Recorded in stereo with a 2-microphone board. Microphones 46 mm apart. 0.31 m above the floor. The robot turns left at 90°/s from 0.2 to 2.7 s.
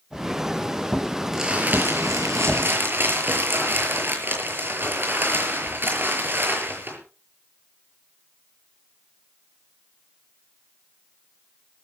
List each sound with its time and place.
1.3 s crumpling: 5° right, 6.5 m; by 7.0 s 130° right, 6.5 m